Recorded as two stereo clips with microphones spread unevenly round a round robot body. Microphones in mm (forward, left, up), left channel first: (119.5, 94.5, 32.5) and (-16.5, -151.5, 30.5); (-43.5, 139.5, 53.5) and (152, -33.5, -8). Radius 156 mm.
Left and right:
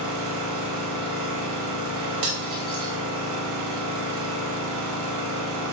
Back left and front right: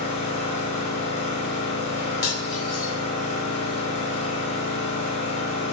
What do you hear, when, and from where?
0.0 s an engine running: 155° right, 1.4 m
2.2 s cutlery clinking: 165° right, 1.7 m